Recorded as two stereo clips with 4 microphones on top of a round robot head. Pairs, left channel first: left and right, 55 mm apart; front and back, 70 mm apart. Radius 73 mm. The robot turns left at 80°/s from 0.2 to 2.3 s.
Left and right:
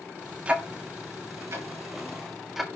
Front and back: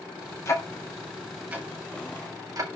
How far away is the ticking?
About 1.8 m.